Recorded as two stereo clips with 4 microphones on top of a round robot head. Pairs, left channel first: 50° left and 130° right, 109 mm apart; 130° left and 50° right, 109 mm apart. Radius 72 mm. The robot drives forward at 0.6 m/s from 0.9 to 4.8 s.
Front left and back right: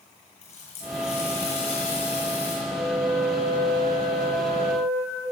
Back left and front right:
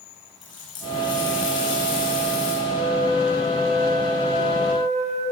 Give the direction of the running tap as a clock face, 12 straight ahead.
9 o'clock.